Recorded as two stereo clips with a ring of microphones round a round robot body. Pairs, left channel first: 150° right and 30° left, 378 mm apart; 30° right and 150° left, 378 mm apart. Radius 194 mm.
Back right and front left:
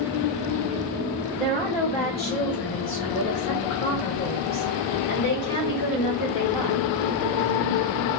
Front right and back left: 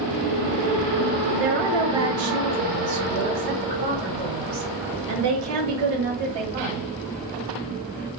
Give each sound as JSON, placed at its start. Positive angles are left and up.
{"t": 1.3, "sound": "a woman speaking", "azimuth_deg": 130, "distance_m": 1.6}